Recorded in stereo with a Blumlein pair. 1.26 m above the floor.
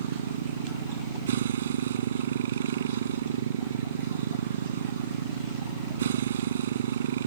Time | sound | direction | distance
0.0 | a motorcycle | 60° right | ?